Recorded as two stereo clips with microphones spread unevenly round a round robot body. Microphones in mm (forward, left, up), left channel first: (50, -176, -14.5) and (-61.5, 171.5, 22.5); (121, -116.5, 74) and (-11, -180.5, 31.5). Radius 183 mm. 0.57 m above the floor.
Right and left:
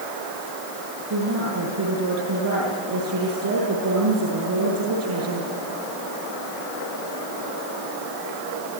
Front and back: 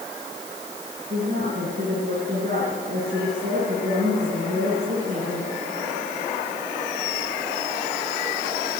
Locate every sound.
1.1 s a woman speaking: 155° left, 8 m